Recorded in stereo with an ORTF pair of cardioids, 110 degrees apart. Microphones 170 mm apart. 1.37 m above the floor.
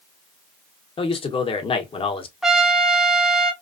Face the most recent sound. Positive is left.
turn(degrees=0)